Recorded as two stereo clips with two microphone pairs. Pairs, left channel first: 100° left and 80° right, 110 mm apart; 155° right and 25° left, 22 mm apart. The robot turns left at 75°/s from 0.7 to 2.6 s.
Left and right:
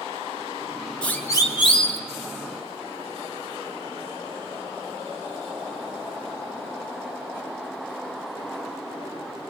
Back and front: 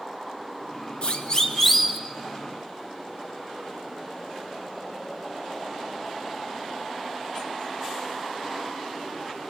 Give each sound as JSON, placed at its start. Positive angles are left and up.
{"t": 1.0, "sound": "a siren", "azimuth_deg": 180, "distance_m": 2.5}